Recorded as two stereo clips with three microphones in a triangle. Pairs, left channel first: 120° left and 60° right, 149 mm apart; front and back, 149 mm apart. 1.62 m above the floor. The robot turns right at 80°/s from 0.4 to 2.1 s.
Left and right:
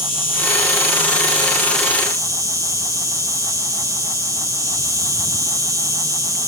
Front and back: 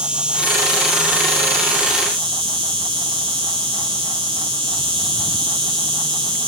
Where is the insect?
95° left; by 6.5 s 130° right.